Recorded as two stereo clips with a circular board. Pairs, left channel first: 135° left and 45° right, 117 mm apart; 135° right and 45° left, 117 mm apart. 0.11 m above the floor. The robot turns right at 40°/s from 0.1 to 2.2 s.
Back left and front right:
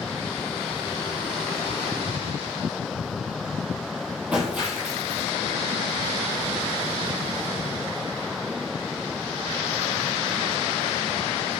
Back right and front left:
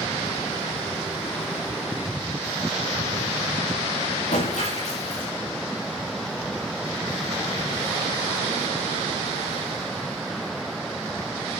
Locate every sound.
4.3 s breaking glass: 130° right, 7.5 m